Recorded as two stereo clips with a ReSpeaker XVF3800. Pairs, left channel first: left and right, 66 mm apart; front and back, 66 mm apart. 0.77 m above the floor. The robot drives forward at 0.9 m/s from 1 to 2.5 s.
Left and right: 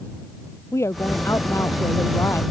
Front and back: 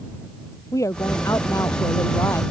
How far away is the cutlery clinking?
No cutlery clinking in this recording.